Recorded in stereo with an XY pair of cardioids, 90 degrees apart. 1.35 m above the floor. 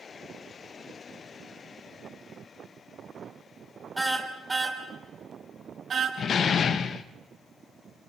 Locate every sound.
4.0 s a car horn: 5° right, 3 m; by 6.1 s 50° right, 3.5 m
6.2 s a door slam: 65° left, 1.0 m